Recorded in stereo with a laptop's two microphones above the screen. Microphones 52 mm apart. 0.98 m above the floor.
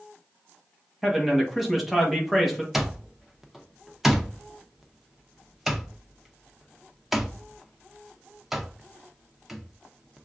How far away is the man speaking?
About 1.1 m.